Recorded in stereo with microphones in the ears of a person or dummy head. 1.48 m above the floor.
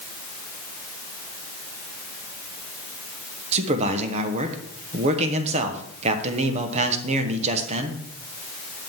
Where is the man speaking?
35° right (ahead or behind), 1.2 m.